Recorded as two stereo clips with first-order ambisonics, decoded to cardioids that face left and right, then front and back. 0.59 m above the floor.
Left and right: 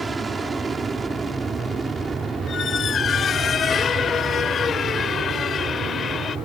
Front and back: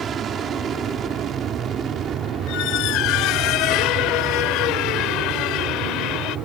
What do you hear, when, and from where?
0.0 s an aircraft: 150° right
2.5 s a squeak: 25° left